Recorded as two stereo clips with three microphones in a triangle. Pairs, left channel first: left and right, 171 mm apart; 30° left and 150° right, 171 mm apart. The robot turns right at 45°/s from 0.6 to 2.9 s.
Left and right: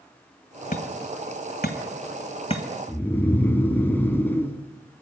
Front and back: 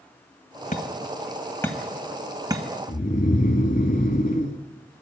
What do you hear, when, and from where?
0.7 s hammering: 65° left, 2.0 m; by 2.6 s 150° left, 2.0 m
2.9 s snoring: 15° left, 1.7 m